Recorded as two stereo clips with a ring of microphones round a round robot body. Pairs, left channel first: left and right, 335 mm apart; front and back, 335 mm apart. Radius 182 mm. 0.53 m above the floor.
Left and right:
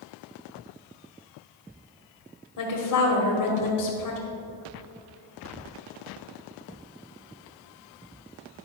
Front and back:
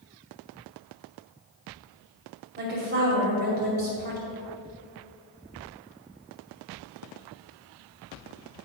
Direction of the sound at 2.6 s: 115° left.